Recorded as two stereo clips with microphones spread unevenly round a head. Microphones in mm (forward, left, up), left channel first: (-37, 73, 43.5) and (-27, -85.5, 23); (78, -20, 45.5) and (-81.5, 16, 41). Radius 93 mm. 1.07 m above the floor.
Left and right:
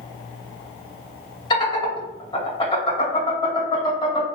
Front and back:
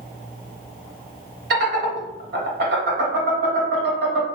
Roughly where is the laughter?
Behind left.